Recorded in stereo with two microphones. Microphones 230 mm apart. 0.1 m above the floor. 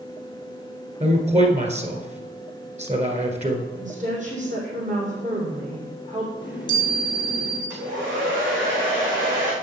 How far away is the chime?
About 3.5 m.